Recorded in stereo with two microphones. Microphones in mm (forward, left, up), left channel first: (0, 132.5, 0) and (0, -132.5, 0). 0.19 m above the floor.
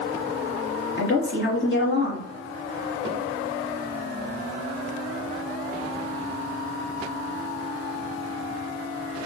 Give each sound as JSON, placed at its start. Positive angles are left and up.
{"t": 1.0, "sound": "a woman speaking", "side_deg": 50, "distance_m": 1.7}